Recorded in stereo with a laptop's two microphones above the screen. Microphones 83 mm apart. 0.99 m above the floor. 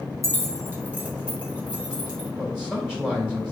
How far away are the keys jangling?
About 1.2 m.